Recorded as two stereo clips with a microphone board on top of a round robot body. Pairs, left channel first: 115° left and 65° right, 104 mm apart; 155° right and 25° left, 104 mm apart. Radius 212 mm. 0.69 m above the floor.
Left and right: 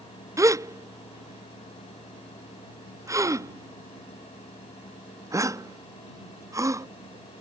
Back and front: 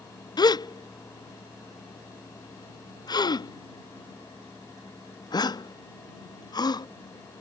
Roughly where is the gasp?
Behind right.